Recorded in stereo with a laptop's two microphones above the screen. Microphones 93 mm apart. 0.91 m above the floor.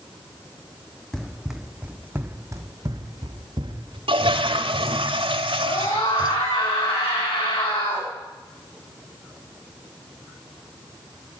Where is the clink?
No clink in this recording.